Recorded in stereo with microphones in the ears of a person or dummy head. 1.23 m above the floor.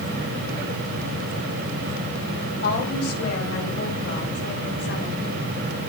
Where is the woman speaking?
65° left (ahead or behind), 6 m; by 5.3 s 60° left (ahead or behind), 4 m.